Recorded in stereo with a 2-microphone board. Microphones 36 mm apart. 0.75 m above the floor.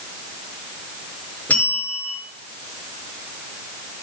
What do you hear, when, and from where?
1.5 s a bell: 45° left (ahead or behind), 6.5 m